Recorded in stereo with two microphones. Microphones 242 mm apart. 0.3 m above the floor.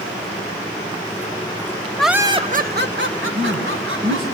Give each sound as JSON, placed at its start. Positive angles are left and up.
{"t": 2.0, "sound": "laughter", "side_deg": 5, "distance_m": 0.9}
{"t": 3.3, "sound": "a man speaking", "side_deg": -70, "distance_m": 3.5}